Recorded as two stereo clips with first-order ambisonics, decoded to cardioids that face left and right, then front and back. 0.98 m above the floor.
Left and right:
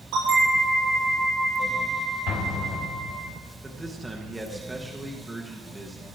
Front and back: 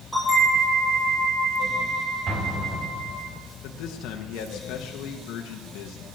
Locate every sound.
0.1 s a bell: 105° right, 7 m
2.3 s an explosion: 125° left, 1.7 m
3.6 s a man speaking: 10° right, 1.1 m